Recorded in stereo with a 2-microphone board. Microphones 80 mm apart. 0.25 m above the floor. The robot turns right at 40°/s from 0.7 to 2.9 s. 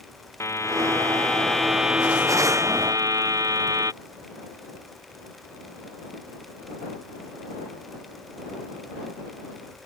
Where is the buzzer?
145° left; by 3.9 s 130° right.